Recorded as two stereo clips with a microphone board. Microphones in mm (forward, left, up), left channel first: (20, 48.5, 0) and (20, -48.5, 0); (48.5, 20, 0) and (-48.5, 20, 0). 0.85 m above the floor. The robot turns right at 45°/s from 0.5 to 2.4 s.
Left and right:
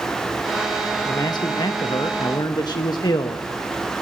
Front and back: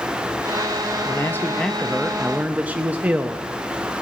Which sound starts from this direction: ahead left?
A man speaking, at 1.1 s.